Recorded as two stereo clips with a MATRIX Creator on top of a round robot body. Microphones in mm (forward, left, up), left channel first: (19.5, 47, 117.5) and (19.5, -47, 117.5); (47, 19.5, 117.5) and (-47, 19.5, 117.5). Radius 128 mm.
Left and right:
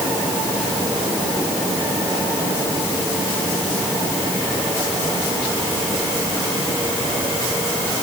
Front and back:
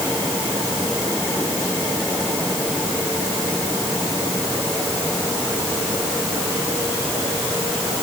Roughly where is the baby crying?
I don't hear a baby crying.